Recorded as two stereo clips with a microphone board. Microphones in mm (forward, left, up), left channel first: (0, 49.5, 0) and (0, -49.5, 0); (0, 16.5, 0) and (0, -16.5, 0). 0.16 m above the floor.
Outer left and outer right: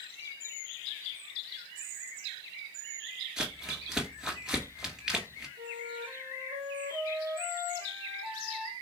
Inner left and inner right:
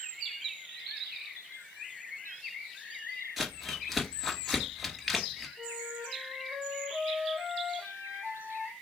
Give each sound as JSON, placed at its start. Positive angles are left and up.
{"t": 3.4, "sound": "crumpling", "side_deg": -5, "distance_m": 1.4}
{"t": 5.6, "sound": "a flute", "side_deg": -80, "distance_m": 1.7}